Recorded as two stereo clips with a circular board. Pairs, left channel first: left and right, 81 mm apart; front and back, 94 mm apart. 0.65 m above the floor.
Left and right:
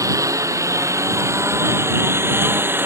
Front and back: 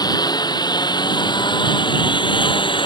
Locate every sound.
0.0 s a lawn mower: 45° right; by 2.9 s 25° right